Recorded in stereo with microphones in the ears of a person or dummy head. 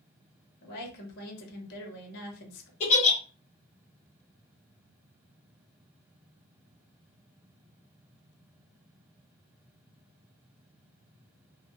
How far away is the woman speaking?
About 1.0 m.